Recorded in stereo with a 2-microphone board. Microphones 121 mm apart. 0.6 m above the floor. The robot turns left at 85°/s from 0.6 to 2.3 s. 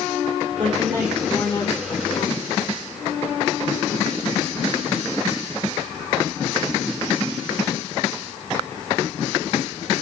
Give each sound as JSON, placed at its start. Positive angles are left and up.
{"t": 0.6, "sound": "a woman speaking", "azimuth_deg": -130, "distance_m": 5.0}